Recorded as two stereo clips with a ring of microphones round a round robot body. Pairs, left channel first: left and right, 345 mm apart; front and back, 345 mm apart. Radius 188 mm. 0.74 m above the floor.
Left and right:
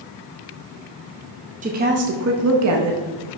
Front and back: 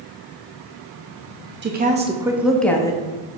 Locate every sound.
1.6 s a woman speaking: 145° right, 0.8 m; by 3.0 s 75° right, 1.0 m